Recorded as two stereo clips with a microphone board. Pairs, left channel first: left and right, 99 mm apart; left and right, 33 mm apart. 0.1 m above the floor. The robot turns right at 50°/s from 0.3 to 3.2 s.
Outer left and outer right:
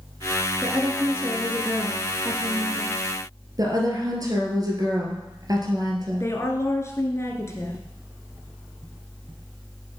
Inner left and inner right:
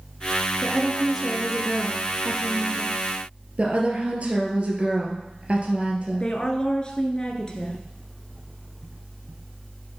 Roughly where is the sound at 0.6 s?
Centre.